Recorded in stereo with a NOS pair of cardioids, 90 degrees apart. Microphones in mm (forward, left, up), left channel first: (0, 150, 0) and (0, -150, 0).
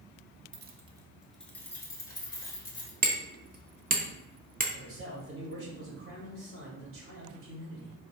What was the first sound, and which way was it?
Keys jangling, 40° right.